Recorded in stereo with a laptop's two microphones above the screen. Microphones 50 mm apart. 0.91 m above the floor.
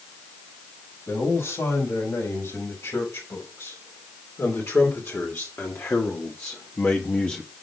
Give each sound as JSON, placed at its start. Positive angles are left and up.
{"t": 1.1, "sound": "a man speaking", "side_deg": 80, "distance_m": 6.0}